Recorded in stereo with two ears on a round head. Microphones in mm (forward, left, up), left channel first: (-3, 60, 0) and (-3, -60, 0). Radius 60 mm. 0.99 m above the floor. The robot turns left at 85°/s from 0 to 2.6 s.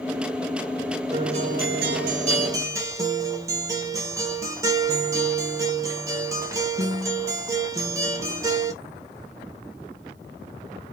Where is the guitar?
30° right, 0.5 m; by 8.7 s 155° right, 0.5 m.